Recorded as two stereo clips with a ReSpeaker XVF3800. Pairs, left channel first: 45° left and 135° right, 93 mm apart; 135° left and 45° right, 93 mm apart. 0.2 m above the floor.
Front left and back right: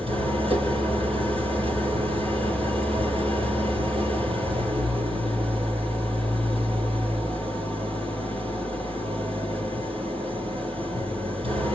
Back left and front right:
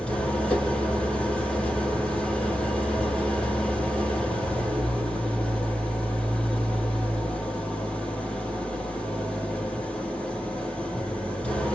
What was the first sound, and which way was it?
An engine running, 145° right.